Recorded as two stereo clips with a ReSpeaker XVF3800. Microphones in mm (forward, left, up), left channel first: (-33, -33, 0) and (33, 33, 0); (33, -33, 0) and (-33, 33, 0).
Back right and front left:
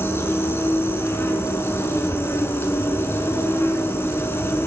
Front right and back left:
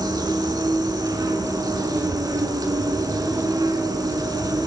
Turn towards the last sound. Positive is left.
turn(degrees=165)